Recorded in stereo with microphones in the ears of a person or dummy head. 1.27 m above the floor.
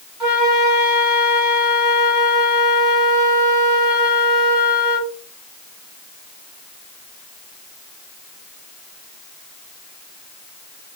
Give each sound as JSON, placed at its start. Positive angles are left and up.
{"t": 0.2, "sound": "a flute", "side_deg": -5, "distance_m": 2.0}